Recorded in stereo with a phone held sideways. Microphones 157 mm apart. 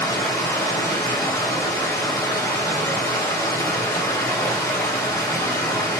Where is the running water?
20° left (ahead or behind), 1.2 m.